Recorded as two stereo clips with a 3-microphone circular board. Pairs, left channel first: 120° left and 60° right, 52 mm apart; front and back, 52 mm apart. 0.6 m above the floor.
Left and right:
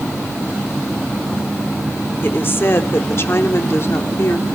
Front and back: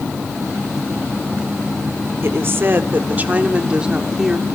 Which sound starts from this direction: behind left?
A woman speaking, at 2.2 s.